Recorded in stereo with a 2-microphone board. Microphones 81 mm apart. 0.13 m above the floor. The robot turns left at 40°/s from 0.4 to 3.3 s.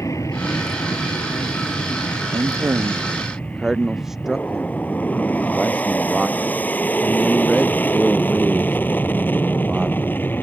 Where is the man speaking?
135° right; by 10.2 s 175° right.